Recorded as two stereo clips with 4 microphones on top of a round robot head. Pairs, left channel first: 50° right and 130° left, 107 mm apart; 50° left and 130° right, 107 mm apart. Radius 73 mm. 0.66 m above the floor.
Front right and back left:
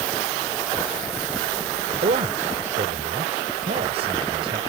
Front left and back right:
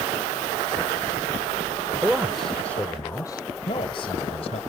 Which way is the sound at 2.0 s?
150° left.